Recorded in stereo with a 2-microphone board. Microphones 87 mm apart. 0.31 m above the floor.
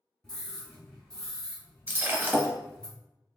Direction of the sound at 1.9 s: 25° right (ahead or behind).